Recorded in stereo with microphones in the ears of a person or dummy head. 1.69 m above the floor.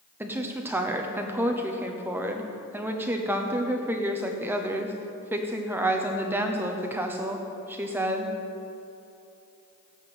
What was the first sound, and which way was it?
A woman speaking, 10° right (ahead or behind).